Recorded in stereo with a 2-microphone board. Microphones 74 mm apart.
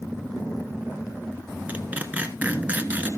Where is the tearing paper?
20° right (ahead or behind), 1.2 m.